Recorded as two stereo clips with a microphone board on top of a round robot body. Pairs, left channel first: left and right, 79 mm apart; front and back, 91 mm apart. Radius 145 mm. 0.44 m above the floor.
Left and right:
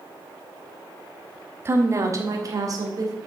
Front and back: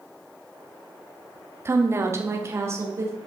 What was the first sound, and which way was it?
A woman speaking, 130° right.